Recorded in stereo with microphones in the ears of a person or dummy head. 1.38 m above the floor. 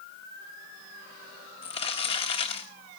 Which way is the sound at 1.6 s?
25° left (ahead or behind).